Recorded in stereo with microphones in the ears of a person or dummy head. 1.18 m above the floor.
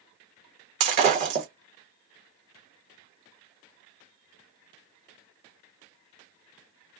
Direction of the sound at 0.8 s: 35° right (ahead or behind).